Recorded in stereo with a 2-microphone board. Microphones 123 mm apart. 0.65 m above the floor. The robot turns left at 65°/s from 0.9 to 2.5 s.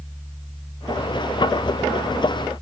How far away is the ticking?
I don't hear ticking.